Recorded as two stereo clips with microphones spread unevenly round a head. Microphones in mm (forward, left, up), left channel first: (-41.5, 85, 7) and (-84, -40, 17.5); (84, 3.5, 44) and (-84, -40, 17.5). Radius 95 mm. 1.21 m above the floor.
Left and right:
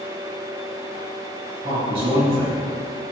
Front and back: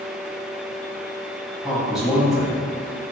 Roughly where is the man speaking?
Right.